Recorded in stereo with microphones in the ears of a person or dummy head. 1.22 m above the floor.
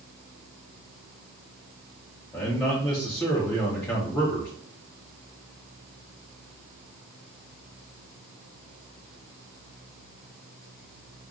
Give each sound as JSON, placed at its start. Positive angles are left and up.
{"t": 2.3, "sound": "a man speaking", "side_deg": 20, "distance_m": 0.6}